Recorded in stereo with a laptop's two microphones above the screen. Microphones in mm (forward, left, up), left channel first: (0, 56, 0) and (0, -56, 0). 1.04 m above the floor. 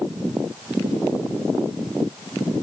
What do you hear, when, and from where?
Only background noise.